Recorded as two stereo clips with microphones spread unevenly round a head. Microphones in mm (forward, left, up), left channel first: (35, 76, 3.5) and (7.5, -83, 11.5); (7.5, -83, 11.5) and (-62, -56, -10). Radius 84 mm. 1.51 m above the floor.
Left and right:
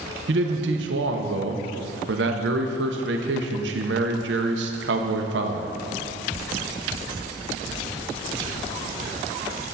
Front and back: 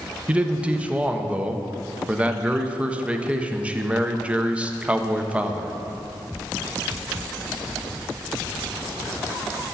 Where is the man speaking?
125° right, 0.9 m.